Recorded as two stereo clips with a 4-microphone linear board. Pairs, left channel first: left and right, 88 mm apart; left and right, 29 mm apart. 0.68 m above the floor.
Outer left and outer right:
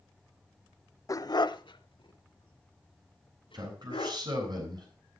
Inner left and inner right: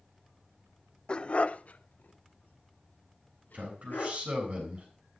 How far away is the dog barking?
About 0.6 m.